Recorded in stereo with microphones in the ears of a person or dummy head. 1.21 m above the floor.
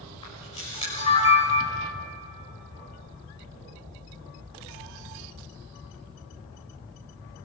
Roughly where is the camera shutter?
Left.